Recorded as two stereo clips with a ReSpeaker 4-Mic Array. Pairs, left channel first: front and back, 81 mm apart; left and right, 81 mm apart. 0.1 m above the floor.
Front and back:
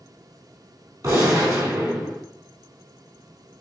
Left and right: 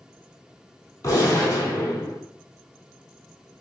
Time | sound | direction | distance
1.0 | a gunshot | 130° left | 2 m